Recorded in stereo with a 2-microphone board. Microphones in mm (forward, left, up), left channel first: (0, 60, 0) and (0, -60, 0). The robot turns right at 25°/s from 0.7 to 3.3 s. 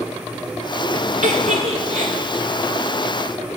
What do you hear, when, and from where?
1.2 s a giggle: 75° right (ahead or behind), 0.9 m; by 2.1 s 60° right (ahead or behind), 0.9 m